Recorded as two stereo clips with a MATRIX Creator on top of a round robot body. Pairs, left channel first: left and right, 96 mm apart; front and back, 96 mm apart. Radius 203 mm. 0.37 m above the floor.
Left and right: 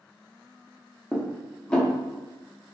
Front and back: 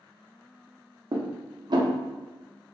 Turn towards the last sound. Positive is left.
turn(degrees=170)